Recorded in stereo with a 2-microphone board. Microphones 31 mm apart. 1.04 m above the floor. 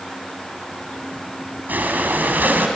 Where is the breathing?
70° right (ahead or behind), 2.5 m.